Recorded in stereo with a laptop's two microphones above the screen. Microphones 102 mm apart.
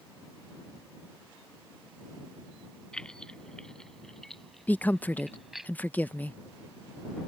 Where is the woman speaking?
15° left (ahead or behind).